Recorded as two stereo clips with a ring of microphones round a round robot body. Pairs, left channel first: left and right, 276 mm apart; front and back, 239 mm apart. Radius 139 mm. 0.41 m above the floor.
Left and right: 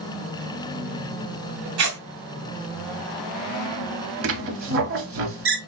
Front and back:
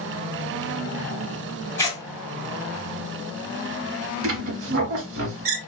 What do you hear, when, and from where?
1.8 s tearing paper: 80° right, 1.7 m
4.2 s a squeak: 135° right, 0.7 m